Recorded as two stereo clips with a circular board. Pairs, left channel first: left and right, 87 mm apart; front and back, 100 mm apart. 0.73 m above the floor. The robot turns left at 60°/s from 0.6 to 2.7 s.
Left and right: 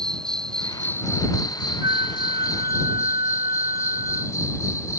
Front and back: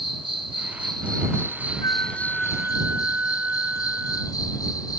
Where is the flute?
50° right; by 4.3 s 105° right.